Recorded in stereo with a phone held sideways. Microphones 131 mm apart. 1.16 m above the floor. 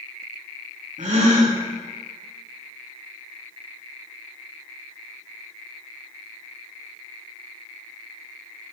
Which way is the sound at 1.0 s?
70° right (ahead or behind).